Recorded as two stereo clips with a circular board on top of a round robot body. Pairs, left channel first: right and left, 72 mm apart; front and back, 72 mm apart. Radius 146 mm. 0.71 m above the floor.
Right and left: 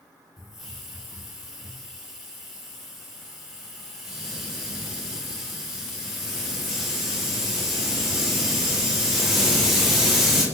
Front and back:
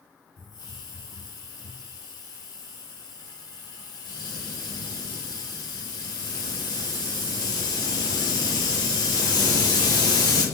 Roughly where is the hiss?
Ahead.